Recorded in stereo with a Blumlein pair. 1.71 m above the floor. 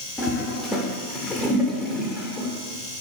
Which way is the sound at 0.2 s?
10° left.